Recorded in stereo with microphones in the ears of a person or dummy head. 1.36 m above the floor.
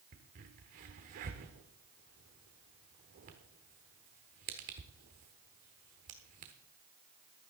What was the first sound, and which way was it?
A crack, 35° right (ahead or behind).